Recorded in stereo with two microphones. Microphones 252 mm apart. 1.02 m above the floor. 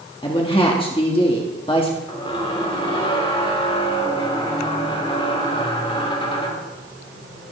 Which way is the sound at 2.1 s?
20° left (ahead or behind).